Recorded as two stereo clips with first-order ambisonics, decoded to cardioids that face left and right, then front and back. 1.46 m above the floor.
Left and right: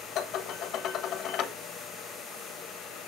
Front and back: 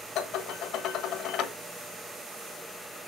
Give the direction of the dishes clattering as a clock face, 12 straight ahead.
11 o'clock.